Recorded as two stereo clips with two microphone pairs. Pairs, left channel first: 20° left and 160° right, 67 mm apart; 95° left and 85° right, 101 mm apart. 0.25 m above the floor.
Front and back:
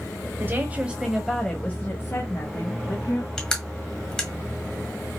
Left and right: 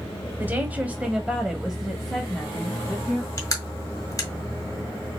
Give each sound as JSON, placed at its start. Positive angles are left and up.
{"t": 0.4, "sound": "a woman speaking", "azimuth_deg": -140, "distance_m": 1.3}
{"t": 3.4, "sound": "crushing", "azimuth_deg": 95, "distance_m": 1.4}